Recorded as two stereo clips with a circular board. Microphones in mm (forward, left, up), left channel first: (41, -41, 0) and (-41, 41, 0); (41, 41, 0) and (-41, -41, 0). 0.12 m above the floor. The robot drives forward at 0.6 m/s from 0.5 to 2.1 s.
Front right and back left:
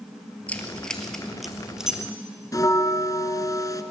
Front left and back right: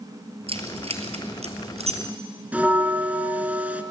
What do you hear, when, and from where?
0.5 s keys jangling: 120° right, 1.9 m; by 2.0 s 140° right, 2.5 m
2.5 s a bell: 70° right, 1.0 m